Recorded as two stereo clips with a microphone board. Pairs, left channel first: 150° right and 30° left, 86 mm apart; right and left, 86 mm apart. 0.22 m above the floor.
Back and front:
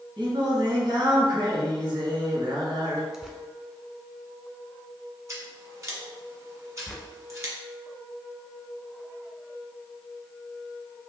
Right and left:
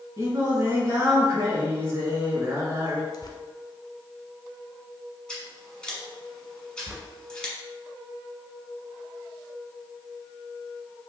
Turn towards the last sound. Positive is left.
turn(degrees=120)